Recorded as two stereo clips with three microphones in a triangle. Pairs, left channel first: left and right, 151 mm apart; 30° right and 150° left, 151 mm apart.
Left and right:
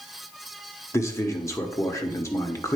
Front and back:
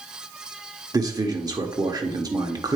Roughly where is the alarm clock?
No alarm clock in this recording.